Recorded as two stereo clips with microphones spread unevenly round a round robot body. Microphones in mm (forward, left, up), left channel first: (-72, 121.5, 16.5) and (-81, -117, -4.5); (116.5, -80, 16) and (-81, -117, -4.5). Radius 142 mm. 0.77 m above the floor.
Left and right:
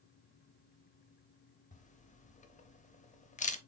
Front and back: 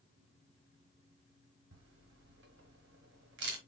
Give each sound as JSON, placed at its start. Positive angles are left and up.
{"t": 1.7, "sound": "a camera shutter", "azimuth_deg": 145, "distance_m": 1.0}